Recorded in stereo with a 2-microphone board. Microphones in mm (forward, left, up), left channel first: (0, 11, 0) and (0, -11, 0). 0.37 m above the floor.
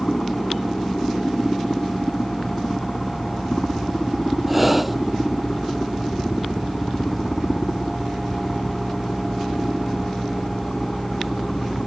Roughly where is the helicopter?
Left.